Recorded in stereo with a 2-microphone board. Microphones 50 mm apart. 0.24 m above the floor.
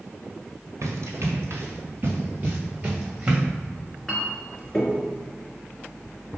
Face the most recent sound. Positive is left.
turn(degrees=15)  # may be behind; listen again after turning